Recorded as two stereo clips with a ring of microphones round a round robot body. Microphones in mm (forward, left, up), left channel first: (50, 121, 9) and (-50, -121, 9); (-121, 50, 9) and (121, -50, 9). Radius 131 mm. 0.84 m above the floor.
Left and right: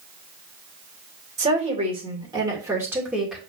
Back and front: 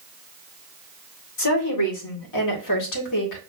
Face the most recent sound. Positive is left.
turn(degrees=160)